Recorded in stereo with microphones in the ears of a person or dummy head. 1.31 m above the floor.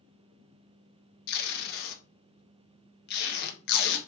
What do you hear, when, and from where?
1.3 s tape being pulled: 60° left (ahead or behind), 1.2 m